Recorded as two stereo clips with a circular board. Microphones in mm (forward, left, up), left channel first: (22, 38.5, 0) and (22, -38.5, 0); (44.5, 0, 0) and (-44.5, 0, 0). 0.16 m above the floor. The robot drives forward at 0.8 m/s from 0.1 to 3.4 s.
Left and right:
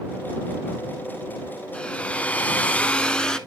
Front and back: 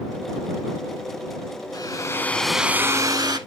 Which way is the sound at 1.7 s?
15° left.